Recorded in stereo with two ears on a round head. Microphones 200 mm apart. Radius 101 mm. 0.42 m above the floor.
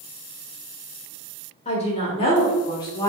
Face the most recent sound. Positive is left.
turn(degrees=15)  # may be behind; listen again after turning